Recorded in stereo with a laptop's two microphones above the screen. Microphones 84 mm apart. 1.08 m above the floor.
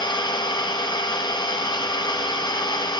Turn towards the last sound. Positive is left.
turn(degrees=60)  # may be behind; listen again after turning